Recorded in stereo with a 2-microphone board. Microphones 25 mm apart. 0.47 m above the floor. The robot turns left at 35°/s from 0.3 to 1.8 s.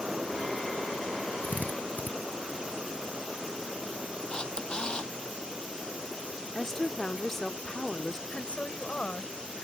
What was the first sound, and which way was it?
A drill, 85° left.